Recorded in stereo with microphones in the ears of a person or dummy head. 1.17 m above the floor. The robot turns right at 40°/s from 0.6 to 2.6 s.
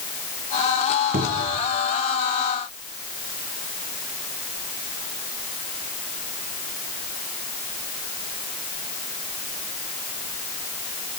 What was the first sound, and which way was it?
A cupboard door, 45° right (ahead or behind).